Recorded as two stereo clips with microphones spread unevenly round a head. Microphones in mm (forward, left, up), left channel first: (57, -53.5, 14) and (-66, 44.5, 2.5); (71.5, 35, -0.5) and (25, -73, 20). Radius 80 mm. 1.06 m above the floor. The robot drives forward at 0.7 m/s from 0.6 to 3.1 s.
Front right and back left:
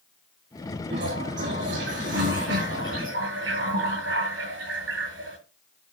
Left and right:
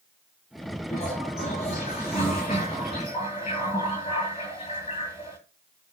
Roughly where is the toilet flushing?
Behind left.